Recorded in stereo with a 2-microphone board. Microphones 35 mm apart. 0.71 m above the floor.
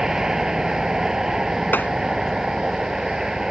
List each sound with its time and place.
0.0 s a vehicle: 20° right (ahead or behind)
1.7 s tapping: 75° left (ahead or behind)